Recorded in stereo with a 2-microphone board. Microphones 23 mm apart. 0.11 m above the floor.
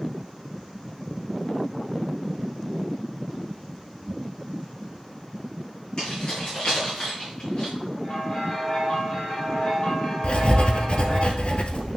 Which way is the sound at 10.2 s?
50° left (ahead or behind).